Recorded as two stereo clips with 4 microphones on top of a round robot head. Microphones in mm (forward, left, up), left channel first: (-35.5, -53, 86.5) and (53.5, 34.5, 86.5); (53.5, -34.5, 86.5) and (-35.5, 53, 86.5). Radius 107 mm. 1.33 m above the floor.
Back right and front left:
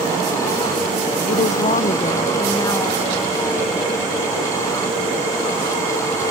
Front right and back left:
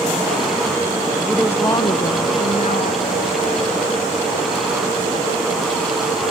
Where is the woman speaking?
135° right; by 5.5 s 60° right.